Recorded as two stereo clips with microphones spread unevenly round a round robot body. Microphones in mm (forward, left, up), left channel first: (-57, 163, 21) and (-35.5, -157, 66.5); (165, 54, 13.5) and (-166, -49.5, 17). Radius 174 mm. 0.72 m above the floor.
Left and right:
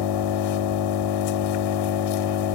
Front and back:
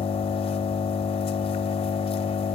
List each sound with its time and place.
0.0 s an engine running: 90° left, 1.1 m